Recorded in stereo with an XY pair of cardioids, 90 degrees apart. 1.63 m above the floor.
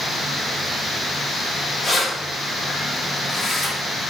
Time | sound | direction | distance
1.8 | keys jangling | 40° left | 1.7 m